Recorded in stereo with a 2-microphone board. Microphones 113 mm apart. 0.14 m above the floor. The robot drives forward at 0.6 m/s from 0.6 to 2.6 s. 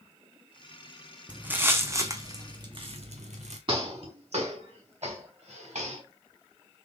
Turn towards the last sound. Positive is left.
turn(degrees=-85)